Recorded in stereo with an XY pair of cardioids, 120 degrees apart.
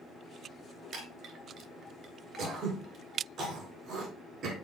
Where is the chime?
60° right, 2.5 m.